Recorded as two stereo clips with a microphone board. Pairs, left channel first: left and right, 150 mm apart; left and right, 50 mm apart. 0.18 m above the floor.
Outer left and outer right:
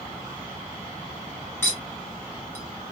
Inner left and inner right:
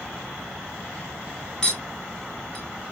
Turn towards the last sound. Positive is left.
turn(degrees=20)  # may be behind; listen again after turning